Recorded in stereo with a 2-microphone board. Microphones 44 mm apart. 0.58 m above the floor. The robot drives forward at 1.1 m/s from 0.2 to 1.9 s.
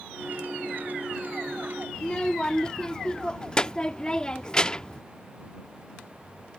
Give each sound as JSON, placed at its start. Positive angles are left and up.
{"t": 1.9, "sound": "a child speaking", "side_deg": 20}